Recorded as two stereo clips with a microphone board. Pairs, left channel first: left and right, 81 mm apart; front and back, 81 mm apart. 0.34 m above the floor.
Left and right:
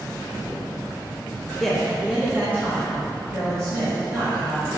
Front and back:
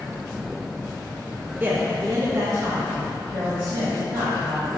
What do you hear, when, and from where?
1.6 s a man speaking: 165° left, 0.9 m; by 4.7 s 130° right, 2.5 m